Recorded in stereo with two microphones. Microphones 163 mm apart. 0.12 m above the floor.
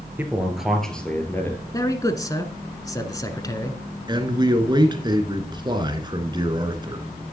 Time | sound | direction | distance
0.2 | a man speaking | 10° right (ahead or behind) | 2.5 m
1.7 | a man speaking | 20° left (ahead or behind) | 1.1 m
4.1 | a man speaking | 30° right (ahead or behind) | 1.3 m